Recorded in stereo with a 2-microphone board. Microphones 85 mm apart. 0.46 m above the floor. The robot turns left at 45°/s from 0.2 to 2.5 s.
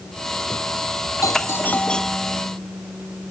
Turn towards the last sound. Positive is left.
turn(degrees=-15)